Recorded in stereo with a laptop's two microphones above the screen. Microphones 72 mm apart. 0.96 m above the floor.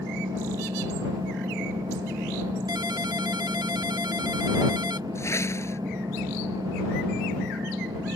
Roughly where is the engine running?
Right.